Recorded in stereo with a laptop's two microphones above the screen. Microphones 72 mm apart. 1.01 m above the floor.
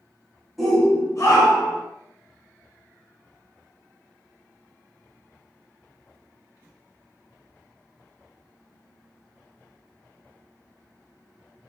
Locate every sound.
0.6 s a shout: centre (ahead or behind), 1.0 m; by 1.8 s 80° left, 1.2 m